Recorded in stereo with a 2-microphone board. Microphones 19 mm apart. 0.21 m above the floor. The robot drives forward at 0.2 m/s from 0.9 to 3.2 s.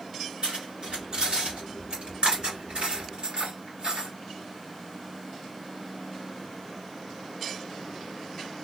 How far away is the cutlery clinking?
About 2 m.